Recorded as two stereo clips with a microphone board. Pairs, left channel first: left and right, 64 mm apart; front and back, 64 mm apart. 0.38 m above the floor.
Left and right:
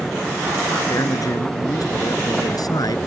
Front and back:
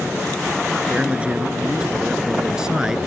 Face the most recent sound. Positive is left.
turn(degrees=100)